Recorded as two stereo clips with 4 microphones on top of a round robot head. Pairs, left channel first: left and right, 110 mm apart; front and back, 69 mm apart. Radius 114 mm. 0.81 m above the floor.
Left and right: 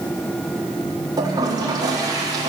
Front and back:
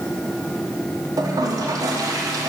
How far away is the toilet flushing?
About 1.5 m.